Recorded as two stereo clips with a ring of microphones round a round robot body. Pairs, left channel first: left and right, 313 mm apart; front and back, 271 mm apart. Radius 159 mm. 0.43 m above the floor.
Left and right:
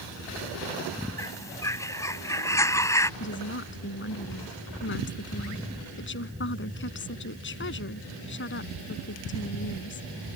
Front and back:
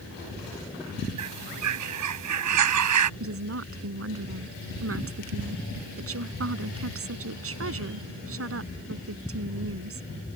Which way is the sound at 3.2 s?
145° left.